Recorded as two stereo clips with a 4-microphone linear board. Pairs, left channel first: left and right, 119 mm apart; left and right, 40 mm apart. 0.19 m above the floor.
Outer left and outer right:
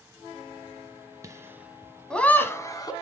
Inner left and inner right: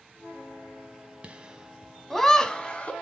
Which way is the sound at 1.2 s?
30° right (ahead or behind).